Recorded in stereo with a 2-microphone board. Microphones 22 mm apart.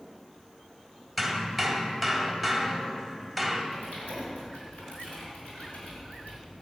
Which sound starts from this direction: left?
Typing on a keyboard, at 3.7 s.